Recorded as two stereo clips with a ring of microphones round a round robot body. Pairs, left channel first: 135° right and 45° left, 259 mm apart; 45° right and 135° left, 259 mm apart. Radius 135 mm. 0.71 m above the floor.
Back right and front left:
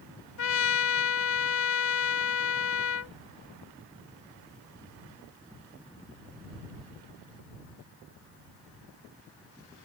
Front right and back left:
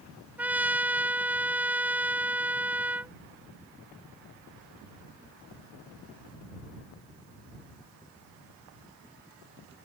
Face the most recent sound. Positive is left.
turn(degrees=-140)